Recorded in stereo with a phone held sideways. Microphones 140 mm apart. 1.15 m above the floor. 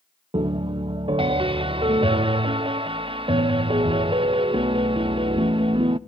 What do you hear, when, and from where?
0.3 s a piano: 40° right (ahead or behind), 0.6 m